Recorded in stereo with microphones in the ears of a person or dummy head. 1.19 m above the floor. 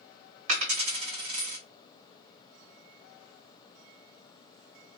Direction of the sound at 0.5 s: 45° right (ahead or behind).